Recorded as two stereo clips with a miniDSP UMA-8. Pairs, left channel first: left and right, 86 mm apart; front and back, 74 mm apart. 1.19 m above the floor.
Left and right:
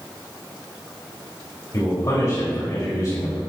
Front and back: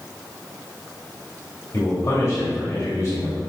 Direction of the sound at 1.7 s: 40° left.